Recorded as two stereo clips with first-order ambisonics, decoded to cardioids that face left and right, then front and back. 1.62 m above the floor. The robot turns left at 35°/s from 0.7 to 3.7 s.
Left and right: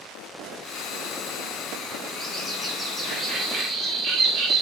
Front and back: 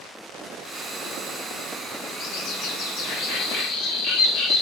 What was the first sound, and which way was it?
A bird, 20° left.